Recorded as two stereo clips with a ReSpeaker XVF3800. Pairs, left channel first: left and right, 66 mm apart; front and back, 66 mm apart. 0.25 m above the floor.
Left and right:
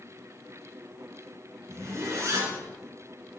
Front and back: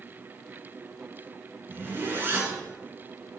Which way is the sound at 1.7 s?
125° right.